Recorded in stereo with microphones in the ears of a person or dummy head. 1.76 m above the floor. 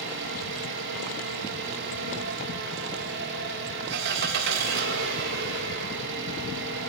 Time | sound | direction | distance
0.0 | an engine running | 65° right (ahead or behind) | 2.5 m